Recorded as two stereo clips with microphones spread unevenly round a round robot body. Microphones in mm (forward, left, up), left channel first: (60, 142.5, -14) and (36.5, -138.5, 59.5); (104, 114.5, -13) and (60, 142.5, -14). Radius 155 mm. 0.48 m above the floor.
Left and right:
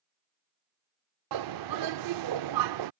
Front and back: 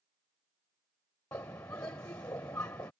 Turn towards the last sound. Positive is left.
turn(degrees=-80)